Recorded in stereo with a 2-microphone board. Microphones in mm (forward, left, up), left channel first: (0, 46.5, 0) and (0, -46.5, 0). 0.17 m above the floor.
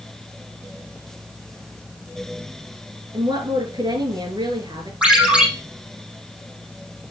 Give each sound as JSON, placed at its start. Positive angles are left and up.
{"t": 3.1, "sound": "a woman speaking", "side_deg": -55, "distance_m": 2.5}
{"t": 5.0, "sound": "a ringtone", "side_deg": -10, "distance_m": 3.5}